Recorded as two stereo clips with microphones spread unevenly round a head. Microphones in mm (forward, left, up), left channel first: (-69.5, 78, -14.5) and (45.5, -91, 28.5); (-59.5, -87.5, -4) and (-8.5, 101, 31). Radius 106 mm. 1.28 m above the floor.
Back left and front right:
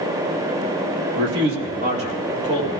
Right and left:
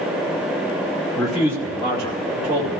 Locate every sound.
1.1 s a man speaking: 20° right, 1.8 m; by 2.8 s 25° left, 3 m